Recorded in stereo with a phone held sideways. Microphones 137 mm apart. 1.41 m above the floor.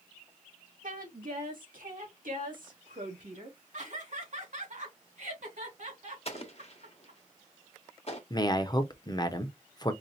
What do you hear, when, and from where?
0.8 s a woman speaking: 70° right (ahead or behind), 1.8 m; by 3.6 s 65° right (ahead or behind), 2.5 m
3.7 s laughter: 65° right (ahead or behind), 2 m
6.2 s an explosion: 50° left (ahead or behind), 1.2 m
8.3 s a man speaking: 30° left (ahead or behind), 0.7 m